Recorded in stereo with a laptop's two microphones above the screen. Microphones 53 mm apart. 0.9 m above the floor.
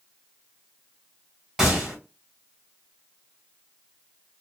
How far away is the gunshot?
About 1.4 m.